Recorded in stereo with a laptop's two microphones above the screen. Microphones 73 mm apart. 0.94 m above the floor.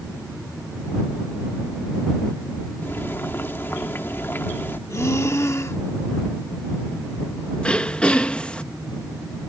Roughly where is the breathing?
Left.